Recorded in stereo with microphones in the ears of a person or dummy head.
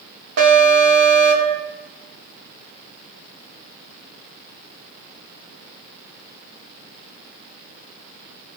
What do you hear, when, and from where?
0.4 s an alarm: 75° right (ahead or behind), 2 m